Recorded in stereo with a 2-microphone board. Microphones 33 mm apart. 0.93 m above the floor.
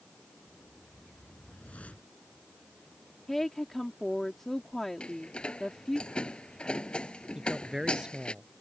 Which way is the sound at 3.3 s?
10° left (ahead or behind).